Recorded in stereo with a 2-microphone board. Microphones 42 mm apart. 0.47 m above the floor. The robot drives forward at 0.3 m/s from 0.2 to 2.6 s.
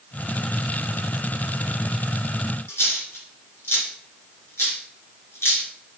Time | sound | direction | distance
2.7 | a dropped coin | 90° left | 2.5 m